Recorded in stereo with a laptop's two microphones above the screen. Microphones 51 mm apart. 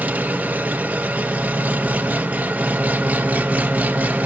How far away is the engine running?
About 0.7 m.